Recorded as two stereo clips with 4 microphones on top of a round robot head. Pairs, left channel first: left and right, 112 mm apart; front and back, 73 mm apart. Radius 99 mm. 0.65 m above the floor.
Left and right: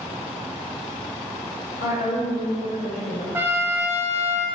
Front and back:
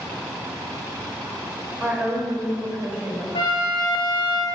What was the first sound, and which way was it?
A woman speaking, 115° left.